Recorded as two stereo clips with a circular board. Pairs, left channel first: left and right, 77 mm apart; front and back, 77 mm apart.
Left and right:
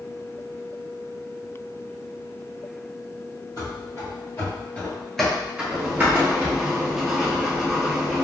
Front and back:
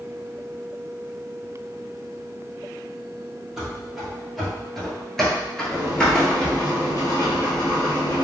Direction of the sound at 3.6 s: 95° left.